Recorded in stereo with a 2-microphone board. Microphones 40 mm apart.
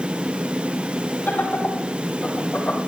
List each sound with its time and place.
1.3 s laughter: 55° left (ahead or behind), 4 m; by 2.8 s 40° left (ahead or behind), 5 m